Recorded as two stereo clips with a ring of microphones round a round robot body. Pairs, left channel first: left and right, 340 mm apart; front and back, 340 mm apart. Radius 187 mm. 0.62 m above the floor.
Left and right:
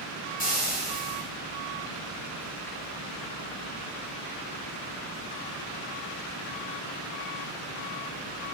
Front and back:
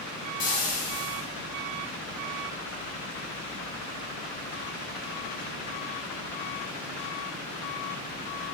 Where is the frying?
25° left, 3 m.